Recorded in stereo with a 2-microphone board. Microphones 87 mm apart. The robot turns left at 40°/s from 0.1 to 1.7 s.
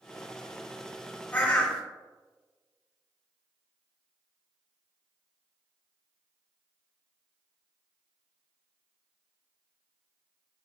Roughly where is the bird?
Left.